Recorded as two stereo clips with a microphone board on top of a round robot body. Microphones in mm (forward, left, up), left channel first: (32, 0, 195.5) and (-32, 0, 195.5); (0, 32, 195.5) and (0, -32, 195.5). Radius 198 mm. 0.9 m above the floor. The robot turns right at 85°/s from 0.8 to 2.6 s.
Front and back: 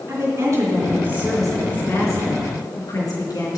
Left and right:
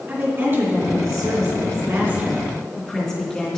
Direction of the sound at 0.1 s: 150° right.